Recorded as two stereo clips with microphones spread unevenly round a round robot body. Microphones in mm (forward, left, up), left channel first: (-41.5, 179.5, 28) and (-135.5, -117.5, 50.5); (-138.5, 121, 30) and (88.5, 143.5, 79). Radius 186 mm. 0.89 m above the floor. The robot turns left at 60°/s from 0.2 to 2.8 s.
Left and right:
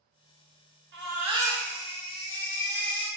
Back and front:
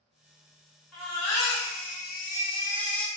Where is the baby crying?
155° right, 0.8 m; by 3.1 s 95° left, 0.8 m.